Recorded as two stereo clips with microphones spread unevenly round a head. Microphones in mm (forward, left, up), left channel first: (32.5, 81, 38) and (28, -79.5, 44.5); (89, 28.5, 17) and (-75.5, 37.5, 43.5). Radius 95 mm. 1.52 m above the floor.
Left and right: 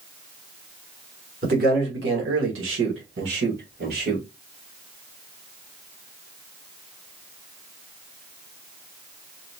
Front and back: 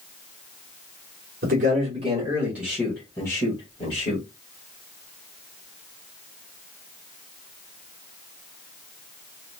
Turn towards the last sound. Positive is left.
turn(degrees=-60)